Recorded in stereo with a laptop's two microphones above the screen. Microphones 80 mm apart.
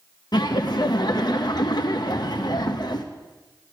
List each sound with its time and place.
0.3 s laughter: 55° left (ahead or behind), 0.7 m